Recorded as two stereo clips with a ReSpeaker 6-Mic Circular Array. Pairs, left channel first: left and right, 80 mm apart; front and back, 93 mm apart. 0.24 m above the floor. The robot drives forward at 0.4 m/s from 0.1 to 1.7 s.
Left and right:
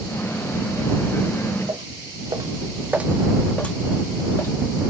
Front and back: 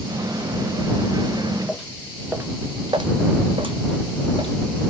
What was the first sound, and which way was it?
Footsteps, 90° right.